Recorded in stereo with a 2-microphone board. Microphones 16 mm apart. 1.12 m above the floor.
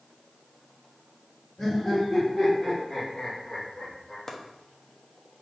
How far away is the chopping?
About 0.6 m.